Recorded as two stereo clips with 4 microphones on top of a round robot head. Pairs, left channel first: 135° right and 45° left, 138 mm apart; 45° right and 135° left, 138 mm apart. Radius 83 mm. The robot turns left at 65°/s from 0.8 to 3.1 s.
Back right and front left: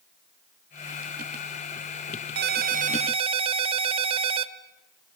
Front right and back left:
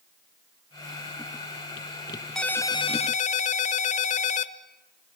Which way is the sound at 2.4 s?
40° left.